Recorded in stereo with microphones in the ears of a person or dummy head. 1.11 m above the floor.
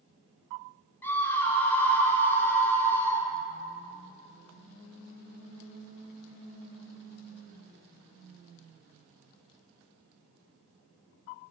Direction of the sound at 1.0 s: 15° left (ahead or behind).